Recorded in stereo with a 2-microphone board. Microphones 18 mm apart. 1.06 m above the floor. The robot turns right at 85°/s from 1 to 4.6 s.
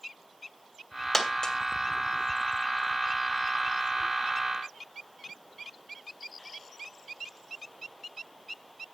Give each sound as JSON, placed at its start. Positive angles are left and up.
{"t": 1.1, "sound": "a dropped coin", "side_deg": 10, "distance_m": 1.6}